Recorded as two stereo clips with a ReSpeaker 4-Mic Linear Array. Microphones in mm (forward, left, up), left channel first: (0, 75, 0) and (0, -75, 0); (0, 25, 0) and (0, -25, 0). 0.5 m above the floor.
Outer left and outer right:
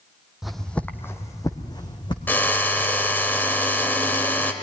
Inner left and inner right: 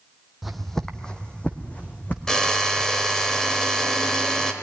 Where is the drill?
15° left (ahead or behind), 1.5 m.